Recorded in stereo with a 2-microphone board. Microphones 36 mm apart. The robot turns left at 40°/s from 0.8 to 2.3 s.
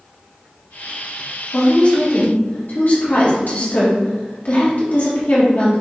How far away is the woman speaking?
About 1.6 m.